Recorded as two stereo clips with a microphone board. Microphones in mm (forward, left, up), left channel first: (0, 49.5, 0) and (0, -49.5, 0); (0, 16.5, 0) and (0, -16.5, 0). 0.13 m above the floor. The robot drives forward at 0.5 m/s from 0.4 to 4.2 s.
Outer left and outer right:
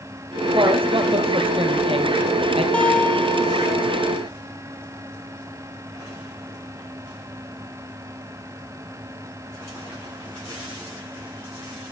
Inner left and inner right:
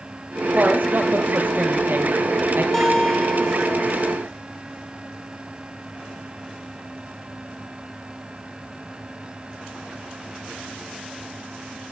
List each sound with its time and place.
0.5 s a woman speaking: 55° right (ahead or behind), 3.5 m; by 2.6 s 65° right (ahead or behind), 3 m
2.7 s a guitar: 10° left (ahead or behind), 1.6 m; by 4.0 s 20° left (ahead or behind), 1.1 m